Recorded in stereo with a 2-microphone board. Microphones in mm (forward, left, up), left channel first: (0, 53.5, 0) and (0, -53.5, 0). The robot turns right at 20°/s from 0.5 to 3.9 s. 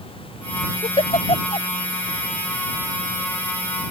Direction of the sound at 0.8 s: 80° left.